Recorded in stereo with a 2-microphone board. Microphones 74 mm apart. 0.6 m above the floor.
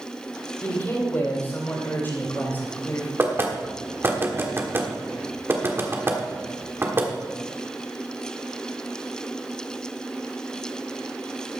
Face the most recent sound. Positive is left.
turn(degrees=-30)  # may be behind; listen again after turning